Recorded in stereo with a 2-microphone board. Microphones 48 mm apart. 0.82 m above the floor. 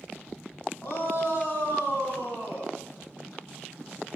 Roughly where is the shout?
Left.